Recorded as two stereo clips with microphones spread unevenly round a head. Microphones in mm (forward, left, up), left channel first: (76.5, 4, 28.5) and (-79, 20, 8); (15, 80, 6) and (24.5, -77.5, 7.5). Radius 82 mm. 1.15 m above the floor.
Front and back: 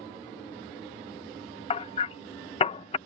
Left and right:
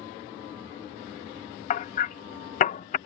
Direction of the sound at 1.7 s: 50° left.